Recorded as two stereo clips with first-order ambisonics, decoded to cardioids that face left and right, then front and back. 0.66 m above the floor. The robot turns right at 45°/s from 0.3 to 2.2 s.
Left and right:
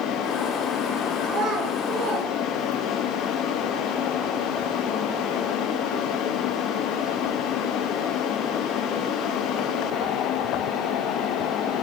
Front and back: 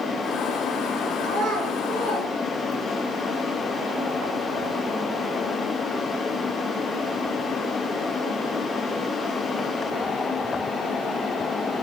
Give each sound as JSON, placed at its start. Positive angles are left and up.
{"t": 1.2, "sound": "a child speaking", "azimuth_deg": -145, "distance_m": 0.9}